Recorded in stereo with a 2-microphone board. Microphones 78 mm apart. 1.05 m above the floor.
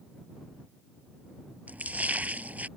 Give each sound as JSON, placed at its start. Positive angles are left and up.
{"t": 1.7, "sound": "a splash", "side_deg": -20}